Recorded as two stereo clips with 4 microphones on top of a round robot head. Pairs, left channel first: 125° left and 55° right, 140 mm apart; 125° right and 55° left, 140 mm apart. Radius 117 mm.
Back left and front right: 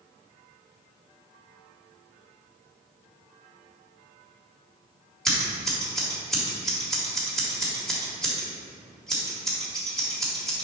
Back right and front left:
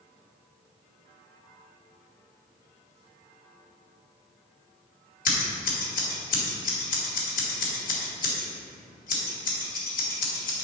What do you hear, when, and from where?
5.2 s scissors: 150° right, 1.8 m